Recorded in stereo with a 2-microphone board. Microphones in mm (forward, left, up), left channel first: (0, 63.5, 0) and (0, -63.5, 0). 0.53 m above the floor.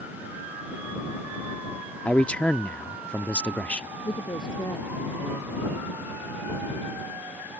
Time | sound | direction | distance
2.0 | a man speaking | 10° left (ahead or behind) | ?
4.0 | a woman speaking | 30° left (ahead or behind) | ?